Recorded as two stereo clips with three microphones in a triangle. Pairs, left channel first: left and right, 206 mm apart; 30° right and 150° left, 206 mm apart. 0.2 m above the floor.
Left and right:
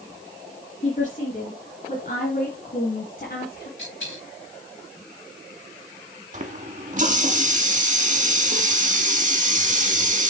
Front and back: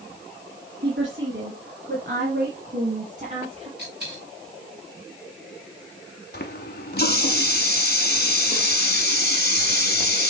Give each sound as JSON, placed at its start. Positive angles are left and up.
{"t": 0.8, "sound": "a woman speaking", "azimuth_deg": 135, "distance_m": 2.5}
{"t": 3.8, "sound": "a dropped coin", "azimuth_deg": 110, "distance_m": 4.0}
{"t": 6.3, "sound": "a running tap", "azimuth_deg": -50, "distance_m": 1.2}